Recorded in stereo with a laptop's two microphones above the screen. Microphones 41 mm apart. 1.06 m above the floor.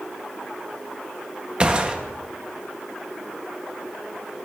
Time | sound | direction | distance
1.6 | a gunshot | 25° right (ahead or behind) | 0.8 m